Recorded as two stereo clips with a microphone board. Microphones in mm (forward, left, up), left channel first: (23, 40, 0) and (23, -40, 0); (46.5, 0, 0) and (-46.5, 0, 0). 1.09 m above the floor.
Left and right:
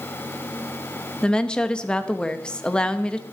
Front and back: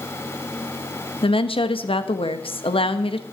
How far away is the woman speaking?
About 0.9 m.